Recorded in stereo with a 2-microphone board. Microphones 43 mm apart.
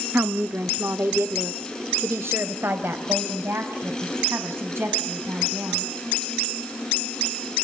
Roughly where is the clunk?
No clunk in this recording.